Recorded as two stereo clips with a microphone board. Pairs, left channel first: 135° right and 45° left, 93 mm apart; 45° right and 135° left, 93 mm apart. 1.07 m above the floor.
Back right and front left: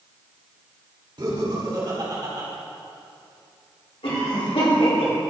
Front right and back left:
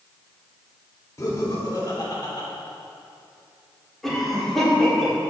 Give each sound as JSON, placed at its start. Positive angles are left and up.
{"t": 1.2, "sound": "laughter", "azimuth_deg": 10, "distance_m": 2.5}
{"t": 4.0, "sound": "a cough", "azimuth_deg": -130, "distance_m": 3.5}